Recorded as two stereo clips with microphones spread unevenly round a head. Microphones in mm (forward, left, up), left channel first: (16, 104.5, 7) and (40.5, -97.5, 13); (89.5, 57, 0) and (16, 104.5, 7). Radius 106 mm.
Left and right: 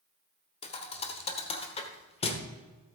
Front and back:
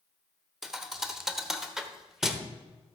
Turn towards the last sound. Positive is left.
turn(degrees=80)